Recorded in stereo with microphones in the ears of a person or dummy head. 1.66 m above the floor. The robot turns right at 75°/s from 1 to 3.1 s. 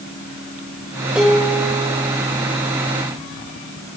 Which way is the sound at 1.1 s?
5° right.